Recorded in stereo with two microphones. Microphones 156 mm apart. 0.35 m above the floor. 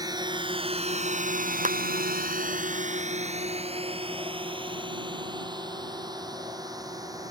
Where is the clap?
55° right (ahead or behind).